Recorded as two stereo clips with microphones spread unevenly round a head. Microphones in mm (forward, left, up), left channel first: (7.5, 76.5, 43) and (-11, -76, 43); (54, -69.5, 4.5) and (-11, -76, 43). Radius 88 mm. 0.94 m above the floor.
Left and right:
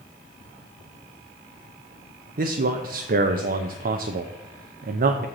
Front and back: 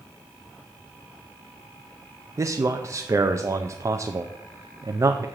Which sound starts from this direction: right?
A man speaking, at 2.4 s.